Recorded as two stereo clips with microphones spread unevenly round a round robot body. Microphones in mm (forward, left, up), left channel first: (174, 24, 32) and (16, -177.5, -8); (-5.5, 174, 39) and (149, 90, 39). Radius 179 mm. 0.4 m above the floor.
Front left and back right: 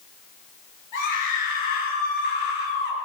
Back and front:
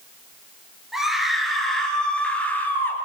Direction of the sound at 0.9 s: 60° left.